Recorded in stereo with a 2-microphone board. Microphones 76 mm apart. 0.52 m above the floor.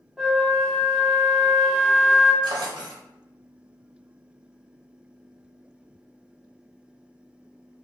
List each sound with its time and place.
0.2 s a flute: centre (ahead or behind), 0.7 m
2.4 s a drawer: 85° right, 0.6 m